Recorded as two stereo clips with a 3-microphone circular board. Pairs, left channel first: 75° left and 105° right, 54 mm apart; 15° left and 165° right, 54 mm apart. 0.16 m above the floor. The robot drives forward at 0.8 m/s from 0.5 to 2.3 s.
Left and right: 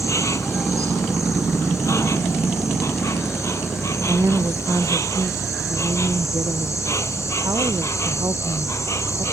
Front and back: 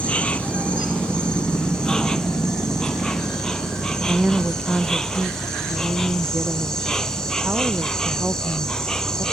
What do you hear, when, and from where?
0.0 s an insect: 80° left; by 9.3 s 95° left
4.1 s a woman speaking: 95° right